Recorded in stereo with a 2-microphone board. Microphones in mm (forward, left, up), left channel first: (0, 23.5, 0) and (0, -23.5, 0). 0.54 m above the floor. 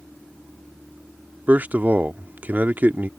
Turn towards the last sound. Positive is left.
turn(degrees=-35)  # may be behind; listen again after turning